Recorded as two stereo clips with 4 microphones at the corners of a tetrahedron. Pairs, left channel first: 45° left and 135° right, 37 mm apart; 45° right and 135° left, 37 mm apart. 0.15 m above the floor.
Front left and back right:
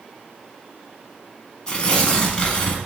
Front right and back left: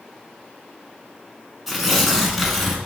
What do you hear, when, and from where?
1.7 s tearing paper: 50° left, 0.9 m